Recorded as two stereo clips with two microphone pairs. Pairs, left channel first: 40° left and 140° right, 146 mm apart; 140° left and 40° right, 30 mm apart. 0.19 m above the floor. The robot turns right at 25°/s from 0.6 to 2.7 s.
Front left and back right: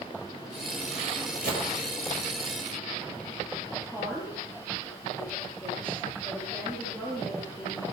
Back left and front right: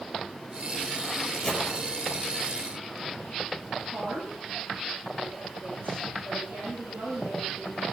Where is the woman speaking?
40° right, 6.5 m.